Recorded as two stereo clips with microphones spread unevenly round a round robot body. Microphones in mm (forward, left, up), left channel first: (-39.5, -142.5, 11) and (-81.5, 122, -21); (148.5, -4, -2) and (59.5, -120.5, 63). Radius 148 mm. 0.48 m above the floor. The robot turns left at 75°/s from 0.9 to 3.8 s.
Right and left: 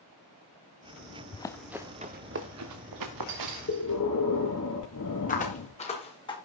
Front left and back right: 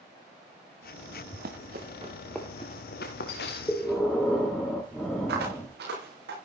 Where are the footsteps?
140° right, 8 m; by 6.4 s 155° right, 7.5 m.